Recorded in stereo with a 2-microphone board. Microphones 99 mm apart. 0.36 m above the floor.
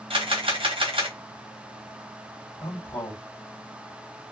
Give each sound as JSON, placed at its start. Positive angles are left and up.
{"t": 0.1, "sound": "a camera shutter", "side_deg": -65, "distance_m": 1.3}
{"t": 2.6, "sound": "a man speaking", "side_deg": 50, "distance_m": 1.9}